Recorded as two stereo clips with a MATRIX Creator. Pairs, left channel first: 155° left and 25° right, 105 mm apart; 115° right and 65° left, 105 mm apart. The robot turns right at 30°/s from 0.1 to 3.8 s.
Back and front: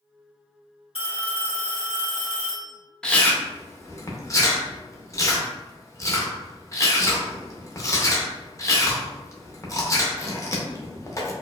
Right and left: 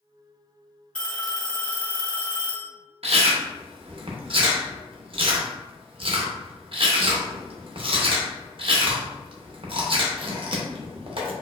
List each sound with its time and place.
0.9 s a phone ringing: 170° left, 1.6 m; by 2.7 s 140° right, 1.6 m
3.0 s chewing: 75° left, 0.6 m; by 11.3 s 100° left, 0.6 m